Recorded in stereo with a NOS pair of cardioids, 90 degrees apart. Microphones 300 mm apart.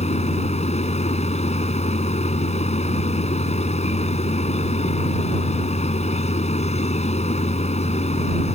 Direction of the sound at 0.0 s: 20° left.